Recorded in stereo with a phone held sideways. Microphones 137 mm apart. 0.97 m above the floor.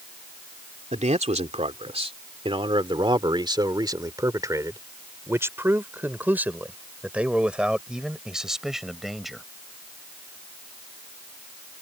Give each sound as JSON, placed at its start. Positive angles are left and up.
{"t": 0.9, "sound": "a man speaking", "side_deg": -55}